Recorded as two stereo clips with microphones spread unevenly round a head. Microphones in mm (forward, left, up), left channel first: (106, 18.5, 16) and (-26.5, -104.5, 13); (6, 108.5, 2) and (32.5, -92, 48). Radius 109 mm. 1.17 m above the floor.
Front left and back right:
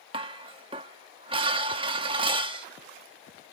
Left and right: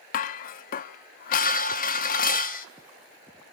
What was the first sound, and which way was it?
Dishes clattering, 155° left.